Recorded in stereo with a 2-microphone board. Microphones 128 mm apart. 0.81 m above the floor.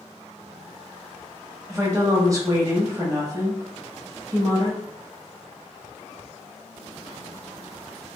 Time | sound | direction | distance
1.7 | a woman speaking | 25° right (ahead or behind) | 0.9 m